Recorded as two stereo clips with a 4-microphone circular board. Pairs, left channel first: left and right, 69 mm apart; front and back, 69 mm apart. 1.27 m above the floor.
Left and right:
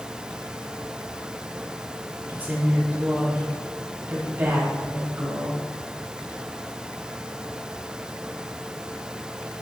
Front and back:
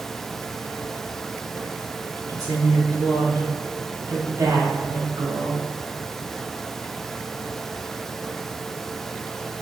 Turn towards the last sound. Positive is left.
turn(degrees=-155)